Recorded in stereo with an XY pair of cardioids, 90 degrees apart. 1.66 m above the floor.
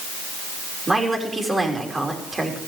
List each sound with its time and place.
0.9 s a woman speaking: 30° right, 5 m